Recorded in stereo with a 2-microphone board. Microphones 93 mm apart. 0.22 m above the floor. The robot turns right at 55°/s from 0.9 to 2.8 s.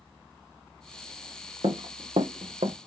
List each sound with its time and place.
1.6 s running footsteps: 70° right (ahead or behind), 1.1 m